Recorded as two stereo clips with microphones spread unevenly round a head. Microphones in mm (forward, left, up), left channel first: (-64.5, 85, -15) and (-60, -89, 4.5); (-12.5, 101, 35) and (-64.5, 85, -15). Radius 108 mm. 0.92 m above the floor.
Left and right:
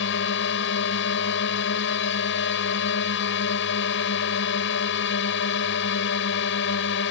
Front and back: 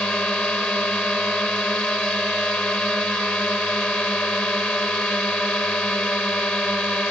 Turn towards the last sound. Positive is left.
turn(degrees=90)